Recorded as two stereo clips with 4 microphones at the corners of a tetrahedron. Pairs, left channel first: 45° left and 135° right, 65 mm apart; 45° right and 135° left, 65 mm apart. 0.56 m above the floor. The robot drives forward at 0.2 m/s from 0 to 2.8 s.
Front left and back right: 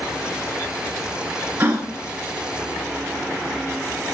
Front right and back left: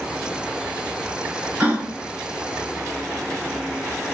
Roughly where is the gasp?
Behind.